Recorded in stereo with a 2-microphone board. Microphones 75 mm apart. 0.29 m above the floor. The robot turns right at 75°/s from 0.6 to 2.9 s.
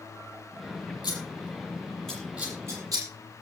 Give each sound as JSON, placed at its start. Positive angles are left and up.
{"t": 1.0, "sound": "scissors", "side_deg": 80, "distance_m": 7.5}